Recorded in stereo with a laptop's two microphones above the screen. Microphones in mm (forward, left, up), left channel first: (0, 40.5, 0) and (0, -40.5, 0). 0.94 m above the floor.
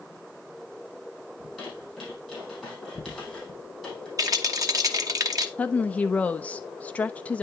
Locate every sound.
1.4 s a squeak: centre (ahead or behind), 4 m
4.2 s a rattle: 50° right (ahead or behind), 0.9 m
5.6 s a woman speaking: 20° left (ahead or behind), 0.6 m